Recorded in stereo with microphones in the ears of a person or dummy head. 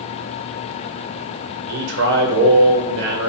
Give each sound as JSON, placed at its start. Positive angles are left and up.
{"t": 1.7, "sound": "a man speaking", "side_deg": -60, "distance_m": 0.8}